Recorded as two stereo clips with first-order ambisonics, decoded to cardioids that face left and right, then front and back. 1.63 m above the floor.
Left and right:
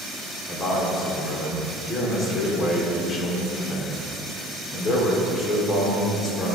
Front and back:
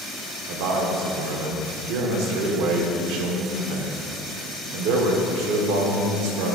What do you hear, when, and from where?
0.5 s a man speaking: 170° left, 1.0 m